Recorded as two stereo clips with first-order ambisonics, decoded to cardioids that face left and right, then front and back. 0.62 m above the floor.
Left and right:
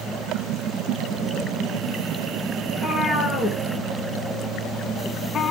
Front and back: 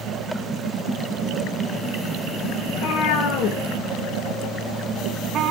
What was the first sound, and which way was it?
A cat meowing, 15° left.